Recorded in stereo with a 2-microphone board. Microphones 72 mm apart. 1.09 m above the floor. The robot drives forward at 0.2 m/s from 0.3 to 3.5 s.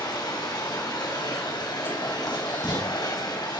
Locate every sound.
0.0 s running water: 80° left, 2.5 m; by 3.6 s 75° left (ahead or behind), 2.5 m
2.3 s writing: 85° left, 4.5 m; by 2.9 s 80° left, 4.5 m